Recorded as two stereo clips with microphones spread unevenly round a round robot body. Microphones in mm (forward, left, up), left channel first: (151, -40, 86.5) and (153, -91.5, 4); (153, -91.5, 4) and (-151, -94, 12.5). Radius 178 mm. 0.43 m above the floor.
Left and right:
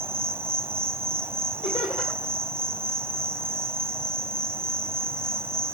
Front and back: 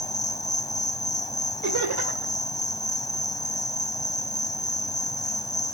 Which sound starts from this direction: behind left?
Laughter, at 1.6 s.